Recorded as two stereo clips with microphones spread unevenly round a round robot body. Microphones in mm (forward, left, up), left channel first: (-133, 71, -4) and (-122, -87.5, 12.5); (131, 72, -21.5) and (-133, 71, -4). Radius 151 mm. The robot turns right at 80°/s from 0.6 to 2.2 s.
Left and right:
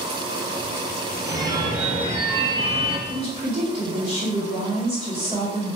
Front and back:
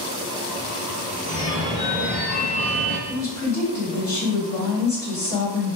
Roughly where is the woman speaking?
Ahead right.